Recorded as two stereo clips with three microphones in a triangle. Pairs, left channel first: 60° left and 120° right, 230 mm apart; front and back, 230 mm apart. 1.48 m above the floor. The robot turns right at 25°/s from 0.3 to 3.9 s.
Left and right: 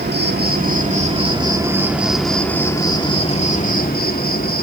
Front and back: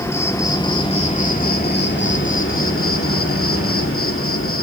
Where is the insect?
75° right, 2.5 m; by 4.6 s 15° left, 2.5 m.